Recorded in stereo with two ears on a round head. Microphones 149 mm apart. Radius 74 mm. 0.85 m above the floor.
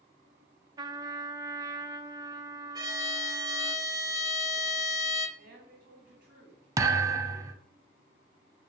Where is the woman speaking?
55° right (ahead or behind), 5.5 m.